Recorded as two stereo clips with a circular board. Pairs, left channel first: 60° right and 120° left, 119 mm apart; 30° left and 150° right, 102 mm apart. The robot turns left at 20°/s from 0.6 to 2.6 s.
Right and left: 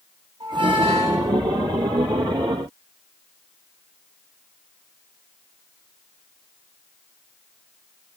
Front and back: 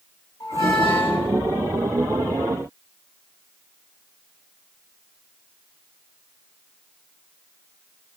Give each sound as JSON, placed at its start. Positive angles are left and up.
{"t": 0.4, "sound": "a squeak", "azimuth_deg": 75, "distance_m": 1.5}